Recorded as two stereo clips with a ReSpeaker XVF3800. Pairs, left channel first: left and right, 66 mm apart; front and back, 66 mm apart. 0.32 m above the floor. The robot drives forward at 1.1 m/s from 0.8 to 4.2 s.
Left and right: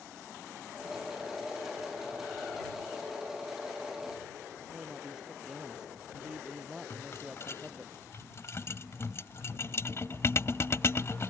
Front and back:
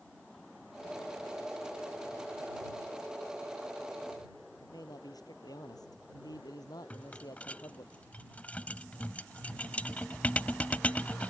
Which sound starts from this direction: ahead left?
A rattle, at 6.9 s.